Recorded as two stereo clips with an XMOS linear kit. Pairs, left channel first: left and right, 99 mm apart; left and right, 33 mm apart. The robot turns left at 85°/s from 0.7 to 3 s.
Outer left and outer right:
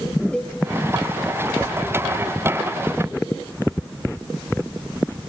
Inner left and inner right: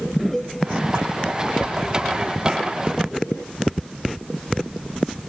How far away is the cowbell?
About 2.5 m.